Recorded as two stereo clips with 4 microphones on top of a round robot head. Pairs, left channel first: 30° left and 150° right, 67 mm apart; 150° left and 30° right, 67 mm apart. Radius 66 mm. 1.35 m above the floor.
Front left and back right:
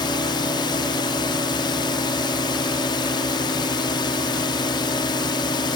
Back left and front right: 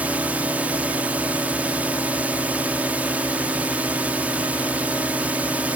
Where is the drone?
40° left.